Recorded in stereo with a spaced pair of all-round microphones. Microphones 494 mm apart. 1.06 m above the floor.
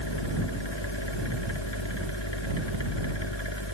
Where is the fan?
60° left (ahead or behind).